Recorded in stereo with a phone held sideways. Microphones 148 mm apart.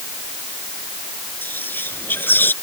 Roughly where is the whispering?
Centre.